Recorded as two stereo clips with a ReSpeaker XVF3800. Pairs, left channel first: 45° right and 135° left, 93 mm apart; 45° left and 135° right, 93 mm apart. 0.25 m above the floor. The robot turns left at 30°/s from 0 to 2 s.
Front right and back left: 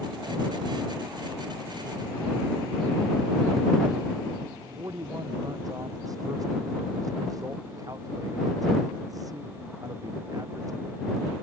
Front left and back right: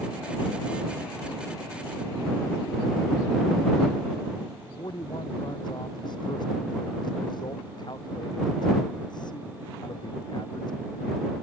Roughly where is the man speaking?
Left.